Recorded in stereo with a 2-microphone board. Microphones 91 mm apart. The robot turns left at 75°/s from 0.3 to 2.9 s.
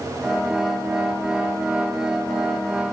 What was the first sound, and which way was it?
Only background noise.